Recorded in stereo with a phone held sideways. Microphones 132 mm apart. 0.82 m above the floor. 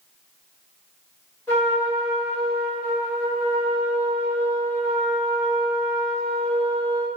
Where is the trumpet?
20° left (ahead or behind), 1.7 m.